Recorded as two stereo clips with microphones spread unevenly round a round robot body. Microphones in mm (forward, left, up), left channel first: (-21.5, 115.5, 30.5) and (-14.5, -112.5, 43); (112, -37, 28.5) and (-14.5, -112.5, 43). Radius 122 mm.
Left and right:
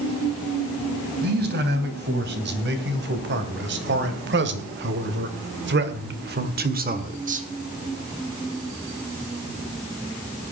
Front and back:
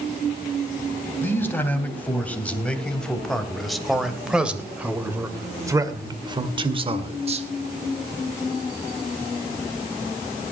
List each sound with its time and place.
1.2 s a man speaking: 40° right, 3.5 m; by 7.5 s 130° right, 1.8 m